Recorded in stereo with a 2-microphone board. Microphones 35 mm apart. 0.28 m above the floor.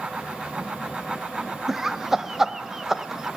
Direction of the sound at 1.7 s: 10° right (ahead or behind).